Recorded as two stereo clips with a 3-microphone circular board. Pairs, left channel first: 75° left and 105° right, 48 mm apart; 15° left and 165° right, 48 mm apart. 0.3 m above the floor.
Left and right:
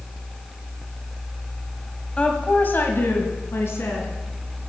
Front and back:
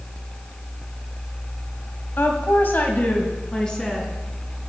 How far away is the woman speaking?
About 1.6 m.